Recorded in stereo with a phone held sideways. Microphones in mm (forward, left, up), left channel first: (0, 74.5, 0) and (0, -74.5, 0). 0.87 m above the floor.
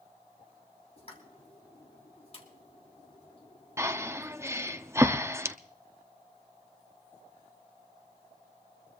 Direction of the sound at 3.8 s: 20° right (ahead or behind).